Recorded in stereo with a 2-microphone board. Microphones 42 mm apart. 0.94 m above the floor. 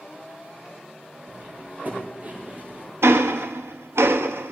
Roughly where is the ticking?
Right.